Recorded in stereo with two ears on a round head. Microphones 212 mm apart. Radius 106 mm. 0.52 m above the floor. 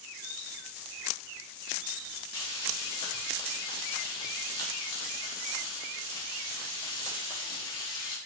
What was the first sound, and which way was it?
Frying, 20° left (ahead or behind).